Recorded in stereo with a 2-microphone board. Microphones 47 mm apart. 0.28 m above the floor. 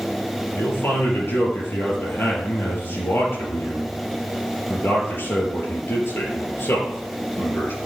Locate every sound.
0.6 s a man speaking: 65° left (ahead or behind), 5 m